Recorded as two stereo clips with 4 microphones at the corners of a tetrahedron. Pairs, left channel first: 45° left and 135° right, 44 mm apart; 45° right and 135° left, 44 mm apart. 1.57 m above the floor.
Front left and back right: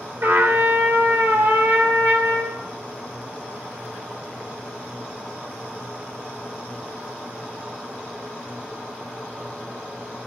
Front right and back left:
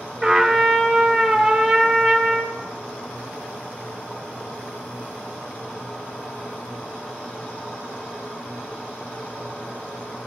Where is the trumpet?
135° right, 2 m.